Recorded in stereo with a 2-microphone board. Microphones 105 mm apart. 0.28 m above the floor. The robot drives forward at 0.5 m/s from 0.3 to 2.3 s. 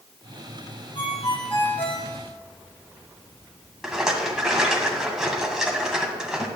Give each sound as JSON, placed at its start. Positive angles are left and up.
{"t": 0.9, "sound": "a ringtone", "side_deg": 65, "distance_m": 4.5}
{"t": 3.8, "sound": "a rattle", "side_deg": -5, "distance_m": 1.9}